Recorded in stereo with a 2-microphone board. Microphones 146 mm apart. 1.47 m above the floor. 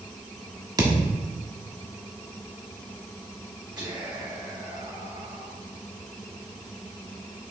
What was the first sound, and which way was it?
A thud, 25° right (ahead or behind).